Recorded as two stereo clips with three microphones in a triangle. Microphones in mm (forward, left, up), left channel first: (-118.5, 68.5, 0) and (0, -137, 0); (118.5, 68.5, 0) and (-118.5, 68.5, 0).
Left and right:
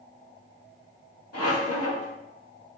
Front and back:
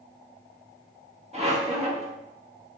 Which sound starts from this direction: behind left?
A squeak, at 1.3 s.